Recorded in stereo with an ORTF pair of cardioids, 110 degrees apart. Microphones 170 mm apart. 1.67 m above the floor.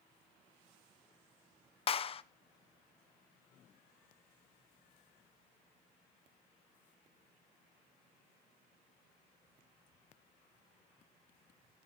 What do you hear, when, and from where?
1.9 s a clap: 35° left, 0.9 m